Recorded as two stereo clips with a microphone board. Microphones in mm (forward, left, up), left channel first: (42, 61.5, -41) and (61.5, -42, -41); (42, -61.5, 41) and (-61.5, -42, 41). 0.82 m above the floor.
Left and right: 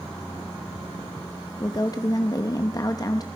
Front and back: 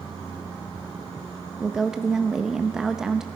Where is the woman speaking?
85° left, 0.6 m.